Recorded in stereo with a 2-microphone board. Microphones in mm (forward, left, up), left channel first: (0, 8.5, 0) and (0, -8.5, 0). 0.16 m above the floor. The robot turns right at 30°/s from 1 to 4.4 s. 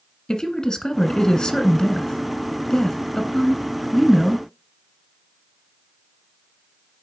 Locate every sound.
0.3 s a woman speaking: 70° left, 1.4 m; by 4.5 s 175° left, 1.4 m